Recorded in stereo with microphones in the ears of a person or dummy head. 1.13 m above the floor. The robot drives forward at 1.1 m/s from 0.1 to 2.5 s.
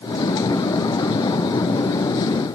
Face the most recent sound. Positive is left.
No sound to turn to.